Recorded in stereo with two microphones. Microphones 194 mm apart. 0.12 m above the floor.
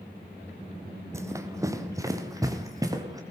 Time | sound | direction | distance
1.1 | running footsteps | 15° right (ahead or behind) | 1.8 m